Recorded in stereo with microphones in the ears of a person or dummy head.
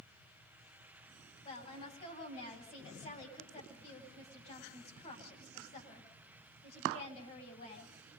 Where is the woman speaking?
40° left (ahead or behind), 10 m.